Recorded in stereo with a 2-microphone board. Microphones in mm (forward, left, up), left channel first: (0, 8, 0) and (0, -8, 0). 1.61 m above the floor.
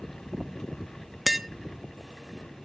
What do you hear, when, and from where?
1.3 s tapping: 5° right (ahead or behind), 0.6 m